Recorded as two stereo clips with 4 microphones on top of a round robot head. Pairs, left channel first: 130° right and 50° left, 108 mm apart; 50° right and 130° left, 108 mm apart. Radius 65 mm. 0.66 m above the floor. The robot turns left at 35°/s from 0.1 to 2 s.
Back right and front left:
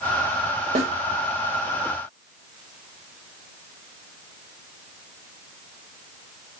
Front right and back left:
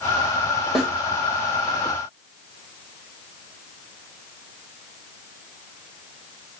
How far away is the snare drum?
About 3 m.